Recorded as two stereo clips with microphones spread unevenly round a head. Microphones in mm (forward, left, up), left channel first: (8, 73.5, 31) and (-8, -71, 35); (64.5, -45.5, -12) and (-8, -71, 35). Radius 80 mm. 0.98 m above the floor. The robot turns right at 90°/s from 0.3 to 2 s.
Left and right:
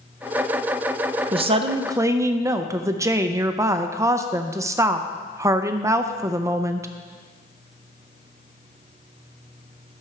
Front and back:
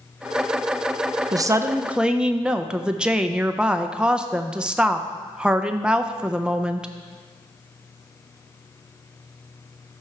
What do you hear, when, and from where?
1.3 s a woman speaking: 100° right, 0.5 m; by 6.9 s 40° right, 0.5 m